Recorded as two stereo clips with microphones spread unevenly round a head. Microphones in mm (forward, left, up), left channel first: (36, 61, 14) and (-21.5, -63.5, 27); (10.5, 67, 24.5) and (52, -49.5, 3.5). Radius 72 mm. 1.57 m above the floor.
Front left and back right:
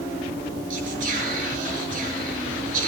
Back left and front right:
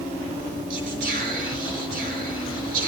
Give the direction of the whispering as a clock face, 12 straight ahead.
3 o'clock.